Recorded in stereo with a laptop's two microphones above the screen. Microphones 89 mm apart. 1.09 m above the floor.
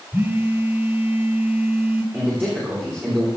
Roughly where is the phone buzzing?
Right.